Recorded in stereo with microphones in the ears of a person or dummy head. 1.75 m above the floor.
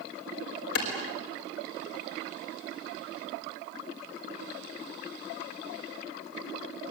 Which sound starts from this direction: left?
A clap, at 0.8 s.